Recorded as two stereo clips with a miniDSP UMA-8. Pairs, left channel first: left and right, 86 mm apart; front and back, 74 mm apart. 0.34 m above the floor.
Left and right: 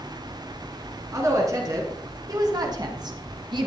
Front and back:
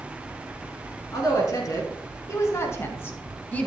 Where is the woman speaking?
35° right, 3.5 m; by 3.7 s 70° right, 1.8 m.